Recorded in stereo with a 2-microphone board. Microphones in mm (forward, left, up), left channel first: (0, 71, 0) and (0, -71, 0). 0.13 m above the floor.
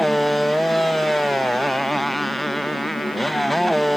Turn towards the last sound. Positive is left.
turn(degrees=0)  # may be behind; listen again after turning